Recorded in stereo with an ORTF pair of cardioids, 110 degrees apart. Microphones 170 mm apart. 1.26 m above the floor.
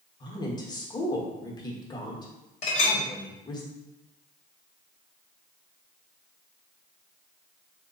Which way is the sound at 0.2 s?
25° left.